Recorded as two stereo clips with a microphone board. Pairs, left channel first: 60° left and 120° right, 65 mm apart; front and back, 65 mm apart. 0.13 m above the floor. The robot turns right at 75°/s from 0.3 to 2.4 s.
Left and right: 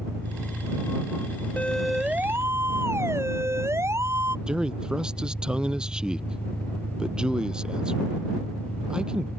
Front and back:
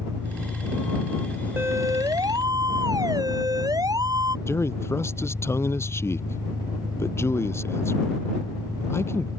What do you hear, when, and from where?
0.0 s an engine running: 165° right; by 9.4 s 5° right
1.6 s a siren: 125° left; by 4.4 s 165° right
4.5 s a man speaking: 45° right